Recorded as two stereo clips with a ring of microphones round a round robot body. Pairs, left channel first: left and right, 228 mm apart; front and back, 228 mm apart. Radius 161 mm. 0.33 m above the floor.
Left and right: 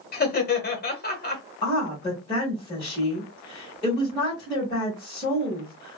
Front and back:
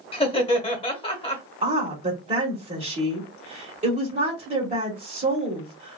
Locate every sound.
0.1 s laughter: 60° left, 1.2 m
1.6 s a woman speaking: 150° left, 1.1 m